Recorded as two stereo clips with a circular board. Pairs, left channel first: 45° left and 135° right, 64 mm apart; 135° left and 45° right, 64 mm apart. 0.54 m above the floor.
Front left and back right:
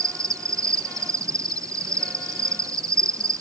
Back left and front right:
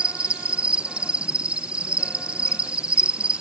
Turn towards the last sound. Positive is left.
turn(degrees=-115)